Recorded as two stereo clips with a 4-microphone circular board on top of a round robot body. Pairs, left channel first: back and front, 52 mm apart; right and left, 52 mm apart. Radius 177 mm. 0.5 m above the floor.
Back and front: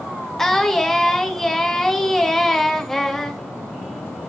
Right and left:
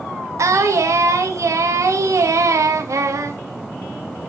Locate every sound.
0.4 s singing: 95° left, 2 m